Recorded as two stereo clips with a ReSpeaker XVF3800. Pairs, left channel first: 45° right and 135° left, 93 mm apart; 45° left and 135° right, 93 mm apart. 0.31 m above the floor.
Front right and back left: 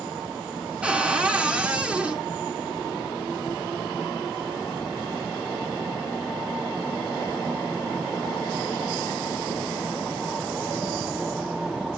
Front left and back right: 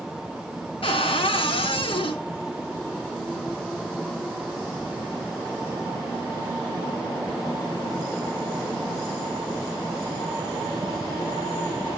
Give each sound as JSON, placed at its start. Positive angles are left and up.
{"t": 0.8, "sound": "a cupboard door", "azimuth_deg": 60, "distance_m": 1.1}